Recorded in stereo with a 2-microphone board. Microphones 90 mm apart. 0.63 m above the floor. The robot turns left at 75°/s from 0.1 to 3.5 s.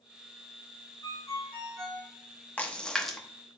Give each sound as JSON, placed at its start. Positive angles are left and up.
{"t": 1.0, "sound": "a ringtone", "azimuth_deg": 50, "distance_m": 2.5}
{"t": 2.6, "sound": "a splash", "side_deg": 15, "distance_m": 0.8}